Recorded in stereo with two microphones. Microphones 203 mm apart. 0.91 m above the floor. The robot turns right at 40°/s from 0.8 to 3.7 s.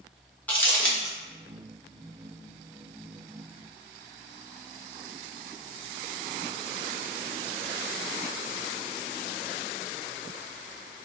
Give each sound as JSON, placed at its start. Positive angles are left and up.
{"t": 0.5, "sound": "crumpling", "side_deg": 10, "distance_m": 1.0}